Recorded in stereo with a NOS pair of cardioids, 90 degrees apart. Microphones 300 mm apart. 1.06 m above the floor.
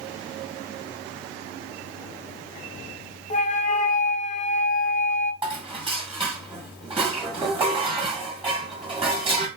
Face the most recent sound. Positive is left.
turn(degrees=-20)